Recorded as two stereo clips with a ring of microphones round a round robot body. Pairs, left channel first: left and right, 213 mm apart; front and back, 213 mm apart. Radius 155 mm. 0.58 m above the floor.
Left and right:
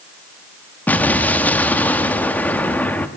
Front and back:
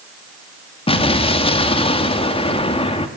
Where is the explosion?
15° left, 1.3 m.